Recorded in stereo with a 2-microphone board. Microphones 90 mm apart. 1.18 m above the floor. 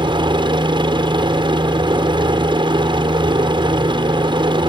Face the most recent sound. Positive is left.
turn(degrees=-65)  # may be behind; listen again after turning